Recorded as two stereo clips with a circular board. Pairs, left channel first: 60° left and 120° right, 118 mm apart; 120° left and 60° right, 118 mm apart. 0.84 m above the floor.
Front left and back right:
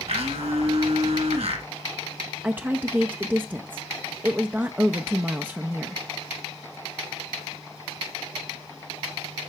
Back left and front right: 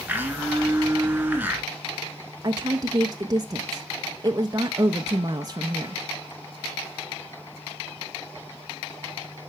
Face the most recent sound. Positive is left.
turn(degrees=-55)